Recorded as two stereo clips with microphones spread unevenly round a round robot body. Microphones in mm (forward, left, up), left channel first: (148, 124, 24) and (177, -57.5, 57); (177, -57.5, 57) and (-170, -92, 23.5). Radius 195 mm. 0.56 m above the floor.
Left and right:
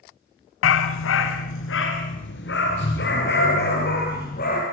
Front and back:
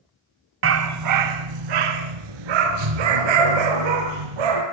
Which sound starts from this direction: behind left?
A dog barking, at 0.6 s.